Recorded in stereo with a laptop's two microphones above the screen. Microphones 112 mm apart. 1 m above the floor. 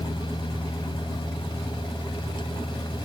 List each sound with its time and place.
0.0 s a fan: 45° left (ahead or behind)